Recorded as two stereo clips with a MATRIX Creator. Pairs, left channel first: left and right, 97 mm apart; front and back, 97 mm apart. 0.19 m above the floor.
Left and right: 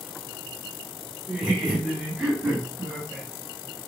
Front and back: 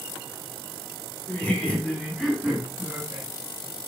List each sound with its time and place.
1.3 s laughter: 20° right, 1.6 m; by 3.3 s 165° right, 1.7 m